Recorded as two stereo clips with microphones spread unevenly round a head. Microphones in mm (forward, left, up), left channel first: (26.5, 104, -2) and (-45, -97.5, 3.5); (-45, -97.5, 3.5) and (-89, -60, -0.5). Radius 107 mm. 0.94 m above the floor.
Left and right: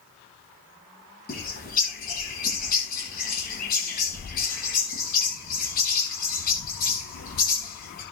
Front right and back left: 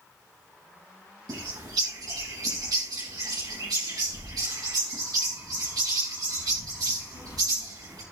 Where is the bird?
120° left, 9 m.